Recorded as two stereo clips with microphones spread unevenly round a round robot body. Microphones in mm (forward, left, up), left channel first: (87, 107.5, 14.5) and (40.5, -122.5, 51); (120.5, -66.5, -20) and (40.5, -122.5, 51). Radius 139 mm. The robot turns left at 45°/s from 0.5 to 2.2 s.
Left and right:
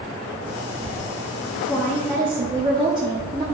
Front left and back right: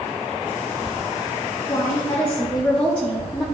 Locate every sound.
1.7 s a woman speaking: 5° right, 1.7 m; by 3.4 s 30° right, 1.7 m